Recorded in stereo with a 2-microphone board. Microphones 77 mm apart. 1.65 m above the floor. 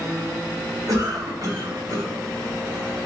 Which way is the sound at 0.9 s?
50° right (ahead or behind).